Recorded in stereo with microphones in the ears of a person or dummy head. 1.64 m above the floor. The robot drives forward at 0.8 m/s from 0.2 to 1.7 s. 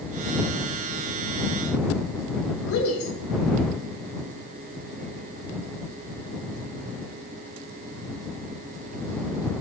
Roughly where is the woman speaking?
Left.